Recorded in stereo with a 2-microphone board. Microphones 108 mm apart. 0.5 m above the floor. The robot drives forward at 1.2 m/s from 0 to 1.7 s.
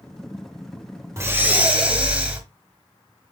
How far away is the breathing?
About 0.5 m.